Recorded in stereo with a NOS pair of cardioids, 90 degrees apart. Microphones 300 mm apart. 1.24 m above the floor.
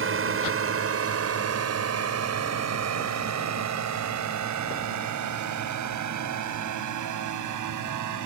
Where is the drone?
45° right; by 8.3 s 80° right.